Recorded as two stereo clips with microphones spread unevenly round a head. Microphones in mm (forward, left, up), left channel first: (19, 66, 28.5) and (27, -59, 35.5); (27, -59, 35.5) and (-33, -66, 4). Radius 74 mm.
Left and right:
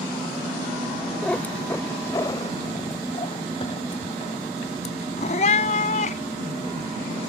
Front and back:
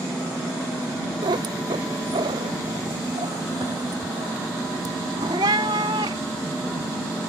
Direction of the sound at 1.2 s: Straight behind.